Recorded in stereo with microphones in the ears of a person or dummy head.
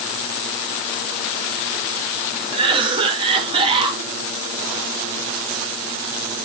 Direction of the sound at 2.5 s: 25° right (ahead or behind).